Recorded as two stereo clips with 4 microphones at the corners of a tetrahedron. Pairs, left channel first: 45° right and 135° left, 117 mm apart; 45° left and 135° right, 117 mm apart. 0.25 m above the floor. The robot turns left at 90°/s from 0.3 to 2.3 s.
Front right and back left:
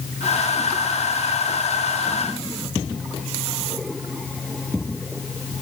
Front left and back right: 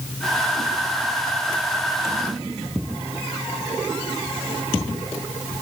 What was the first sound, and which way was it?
Only background noise.